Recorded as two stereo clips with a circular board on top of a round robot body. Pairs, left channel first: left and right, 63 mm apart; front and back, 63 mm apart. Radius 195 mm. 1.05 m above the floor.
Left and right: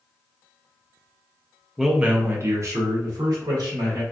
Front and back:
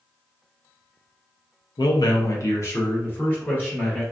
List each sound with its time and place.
1.8 s a man speaking: straight ahead, 0.6 m; by 4.0 s 70° right, 1.6 m